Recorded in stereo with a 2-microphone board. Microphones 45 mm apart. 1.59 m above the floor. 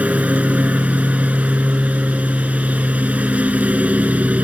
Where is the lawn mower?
30° right (ahead or behind).